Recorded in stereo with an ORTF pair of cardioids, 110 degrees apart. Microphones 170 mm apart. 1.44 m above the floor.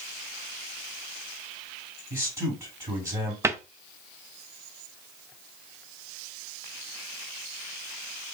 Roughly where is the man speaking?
Ahead.